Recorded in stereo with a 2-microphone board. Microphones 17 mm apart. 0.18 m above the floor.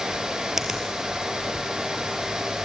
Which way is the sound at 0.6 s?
20° right (ahead or behind).